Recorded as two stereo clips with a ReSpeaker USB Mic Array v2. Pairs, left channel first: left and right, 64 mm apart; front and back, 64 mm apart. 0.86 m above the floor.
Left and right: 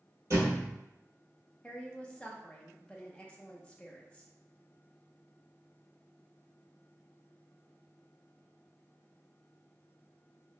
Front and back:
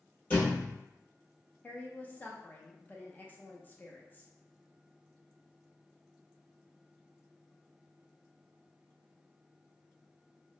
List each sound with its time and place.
0.3 s a thud: 60° right, 1.3 m
1.6 s a woman speaking: 30° left, 0.5 m